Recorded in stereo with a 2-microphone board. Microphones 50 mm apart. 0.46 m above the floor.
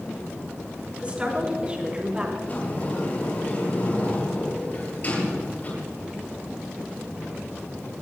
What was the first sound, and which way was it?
A woman speaking, 25° right (ahead or behind).